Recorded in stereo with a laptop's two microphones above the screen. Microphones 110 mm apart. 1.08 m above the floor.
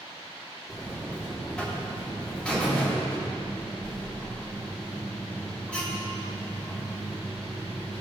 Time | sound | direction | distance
0.7 | a buzzer | 10° left (ahead or behind) | 1.7 m